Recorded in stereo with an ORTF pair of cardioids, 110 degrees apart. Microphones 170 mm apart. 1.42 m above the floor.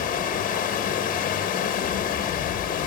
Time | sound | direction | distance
0.0 | running water | 55° left | 2.0 m